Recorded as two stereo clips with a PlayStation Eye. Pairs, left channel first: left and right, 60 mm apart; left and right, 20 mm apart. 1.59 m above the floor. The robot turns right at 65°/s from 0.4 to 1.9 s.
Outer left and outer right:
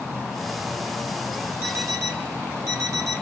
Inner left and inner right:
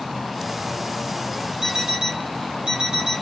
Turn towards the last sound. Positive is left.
turn(degrees=-55)  # may be behind; listen again after turning